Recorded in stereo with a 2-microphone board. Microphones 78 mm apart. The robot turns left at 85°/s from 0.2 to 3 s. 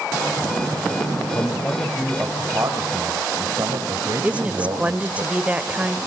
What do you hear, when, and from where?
1.4 s a man speaking: 55° left, 2 m; by 5.2 s 85° right, 2 m
4.2 s a woman speaking: 15° right (ahead or behind), 1.1 m